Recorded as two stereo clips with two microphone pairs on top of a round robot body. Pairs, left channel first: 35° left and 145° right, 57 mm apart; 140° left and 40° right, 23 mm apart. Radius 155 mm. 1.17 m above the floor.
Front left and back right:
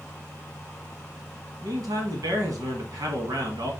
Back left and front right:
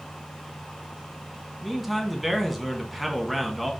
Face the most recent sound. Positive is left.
turn(degrees=-130)